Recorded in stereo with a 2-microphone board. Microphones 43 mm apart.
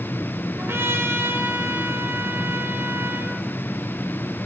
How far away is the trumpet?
About 3 m.